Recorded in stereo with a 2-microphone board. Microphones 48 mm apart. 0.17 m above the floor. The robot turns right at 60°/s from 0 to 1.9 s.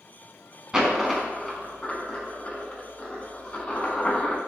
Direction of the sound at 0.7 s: 15° right (ahead or behind).